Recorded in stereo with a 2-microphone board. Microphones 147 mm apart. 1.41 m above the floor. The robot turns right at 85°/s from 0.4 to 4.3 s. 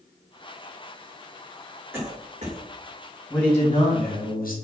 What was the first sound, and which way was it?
A cough, 15° right (ahead or behind).